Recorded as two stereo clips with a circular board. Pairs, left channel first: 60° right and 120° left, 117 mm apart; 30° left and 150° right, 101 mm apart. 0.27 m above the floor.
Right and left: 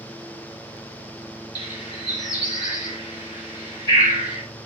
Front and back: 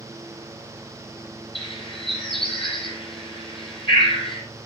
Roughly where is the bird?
Ahead.